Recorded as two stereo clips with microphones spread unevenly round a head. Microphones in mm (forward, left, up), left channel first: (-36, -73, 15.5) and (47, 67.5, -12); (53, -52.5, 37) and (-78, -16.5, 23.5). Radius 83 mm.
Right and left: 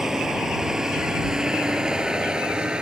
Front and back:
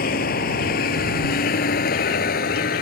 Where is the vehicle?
30° right; by 2.8 s 25° right.